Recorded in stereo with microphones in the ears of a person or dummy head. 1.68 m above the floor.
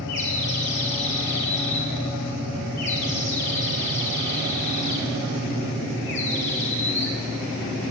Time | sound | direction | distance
0.1 | a bird | 60° left (ahead or behind) | 3 m